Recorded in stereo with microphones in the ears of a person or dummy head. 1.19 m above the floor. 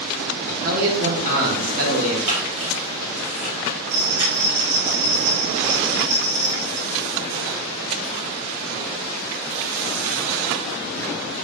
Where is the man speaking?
45° right (ahead or behind), 0.7 m.